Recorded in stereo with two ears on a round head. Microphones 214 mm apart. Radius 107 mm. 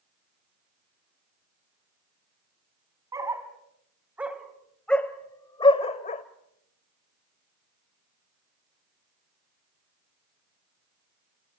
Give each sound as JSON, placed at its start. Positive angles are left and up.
{"t": 3.1, "sound": "a dog barking", "side_deg": -15, "distance_m": 2.5}